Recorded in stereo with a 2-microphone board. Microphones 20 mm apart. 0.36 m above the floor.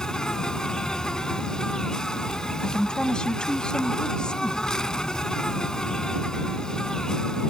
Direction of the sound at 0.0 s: 40° left (ahead or behind).